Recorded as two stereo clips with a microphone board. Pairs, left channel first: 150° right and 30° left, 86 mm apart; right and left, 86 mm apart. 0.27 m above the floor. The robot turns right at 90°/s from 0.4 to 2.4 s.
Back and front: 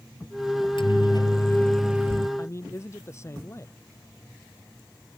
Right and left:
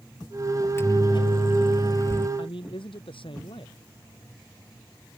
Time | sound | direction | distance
0.6 | a microwave | 165° right | ?
2.4 | a man speaking | 95° right | ?